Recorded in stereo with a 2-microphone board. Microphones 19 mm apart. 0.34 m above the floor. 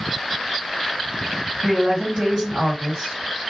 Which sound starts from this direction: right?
A woman speaking, at 1.6 s.